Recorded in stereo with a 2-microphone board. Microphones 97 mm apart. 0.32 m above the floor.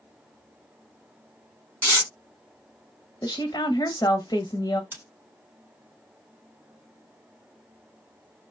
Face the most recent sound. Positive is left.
turn(degrees=-20)  # may be behind; listen again after turning